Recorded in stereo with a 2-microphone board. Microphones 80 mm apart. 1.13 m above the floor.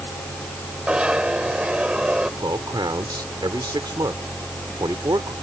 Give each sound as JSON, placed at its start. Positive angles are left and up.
{"t": 0.9, "sound": "a zipper", "side_deg": -15}
{"t": 2.4, "sound": "a man speaking", "side_deg": -60}